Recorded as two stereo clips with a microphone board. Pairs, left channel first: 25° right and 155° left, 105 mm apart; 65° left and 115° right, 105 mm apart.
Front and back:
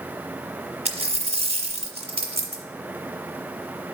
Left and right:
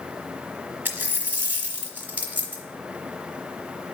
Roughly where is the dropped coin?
Behind.